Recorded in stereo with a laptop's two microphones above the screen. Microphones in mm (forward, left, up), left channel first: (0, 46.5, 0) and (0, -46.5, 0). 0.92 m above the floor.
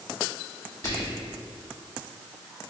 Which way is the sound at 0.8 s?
35° left (ahead or behind).